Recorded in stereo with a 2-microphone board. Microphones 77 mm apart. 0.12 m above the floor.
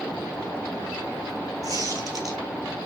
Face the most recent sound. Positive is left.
turn(degrees=-50)  # may be behind; listen again after turning